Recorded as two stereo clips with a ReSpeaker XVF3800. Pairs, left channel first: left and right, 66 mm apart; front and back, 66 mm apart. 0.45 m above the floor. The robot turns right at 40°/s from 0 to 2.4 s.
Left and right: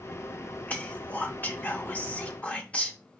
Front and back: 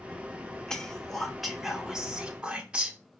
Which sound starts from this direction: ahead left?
Whispering, at 0.7 s.